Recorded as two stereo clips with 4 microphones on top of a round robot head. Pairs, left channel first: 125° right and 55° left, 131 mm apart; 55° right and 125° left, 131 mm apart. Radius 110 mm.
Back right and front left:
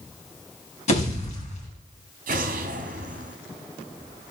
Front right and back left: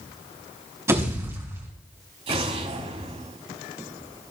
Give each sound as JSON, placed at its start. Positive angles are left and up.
{"t": 0.9, "sound": "a pop", "azimuth_deg": -165, "distance_m": 4.0}
{"t": 2.3, "sound": "an explosion", "azimuth_deg": 80, "distance_m": 1.1}